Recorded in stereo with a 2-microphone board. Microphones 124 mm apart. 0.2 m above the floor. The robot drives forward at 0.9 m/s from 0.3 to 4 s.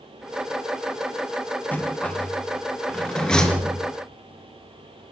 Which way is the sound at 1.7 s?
15° left (ahead or behind).